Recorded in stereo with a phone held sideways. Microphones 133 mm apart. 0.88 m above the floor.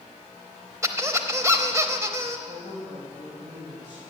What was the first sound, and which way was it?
A squeak, 25° right (ahead or behind).